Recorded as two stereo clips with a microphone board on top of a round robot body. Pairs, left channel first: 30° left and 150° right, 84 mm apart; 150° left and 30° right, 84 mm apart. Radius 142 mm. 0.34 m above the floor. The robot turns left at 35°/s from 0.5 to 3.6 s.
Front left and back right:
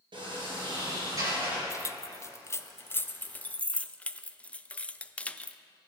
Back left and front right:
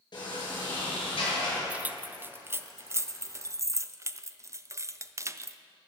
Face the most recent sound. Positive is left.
turn(degrees=-35)